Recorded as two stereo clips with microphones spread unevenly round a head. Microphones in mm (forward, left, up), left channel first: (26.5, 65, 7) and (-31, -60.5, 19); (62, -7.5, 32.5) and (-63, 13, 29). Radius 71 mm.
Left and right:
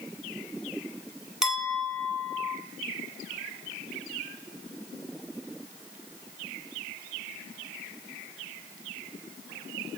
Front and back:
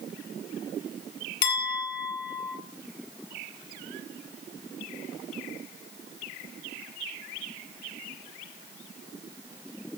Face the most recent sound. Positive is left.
turn(degrees=-30)